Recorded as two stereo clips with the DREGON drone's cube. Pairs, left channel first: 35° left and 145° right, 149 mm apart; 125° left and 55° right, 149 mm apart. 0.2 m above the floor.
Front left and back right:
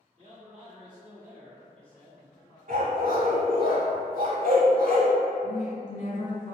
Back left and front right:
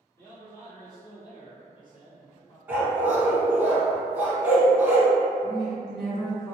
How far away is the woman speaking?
About 1.5 m.